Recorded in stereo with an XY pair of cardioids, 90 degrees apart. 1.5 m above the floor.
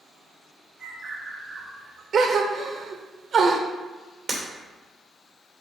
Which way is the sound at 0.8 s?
65° right.